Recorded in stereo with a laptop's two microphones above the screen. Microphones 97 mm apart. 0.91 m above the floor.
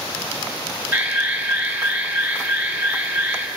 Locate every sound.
0.9 s an alarm: 20° right (ahead or behind), 2.5 m